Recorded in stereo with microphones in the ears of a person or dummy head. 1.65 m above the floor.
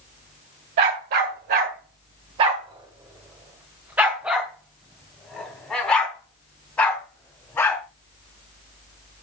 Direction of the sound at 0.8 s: 45° right (ahead or behind).